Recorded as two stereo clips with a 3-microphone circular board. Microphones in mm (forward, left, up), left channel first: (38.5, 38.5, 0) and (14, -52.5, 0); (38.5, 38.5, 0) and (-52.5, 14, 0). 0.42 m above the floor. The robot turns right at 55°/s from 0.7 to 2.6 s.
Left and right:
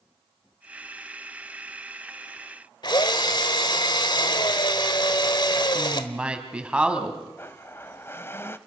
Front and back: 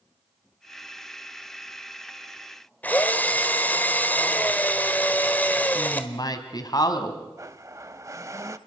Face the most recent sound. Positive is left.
turn(degrees=140)